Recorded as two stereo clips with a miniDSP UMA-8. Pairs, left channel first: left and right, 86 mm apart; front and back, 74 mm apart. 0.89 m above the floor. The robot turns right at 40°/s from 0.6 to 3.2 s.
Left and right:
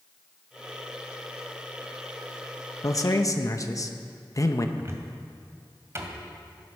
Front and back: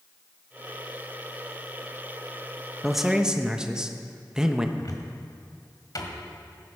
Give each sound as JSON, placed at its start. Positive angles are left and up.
{"t": 2.8, "sound": "a man speaking", "azimuth_deg": 90, "distance_m": 0.9}
{"t": 4.8, "sound": "a cupboard door", "azimuth_deg": -35, "distance_m": 1.8}